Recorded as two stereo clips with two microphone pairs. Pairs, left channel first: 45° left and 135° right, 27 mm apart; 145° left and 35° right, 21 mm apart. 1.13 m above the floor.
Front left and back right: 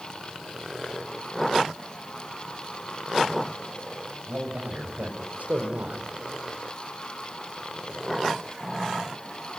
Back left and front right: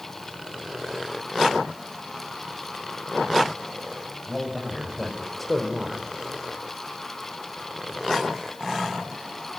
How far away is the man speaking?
About 6.5 m.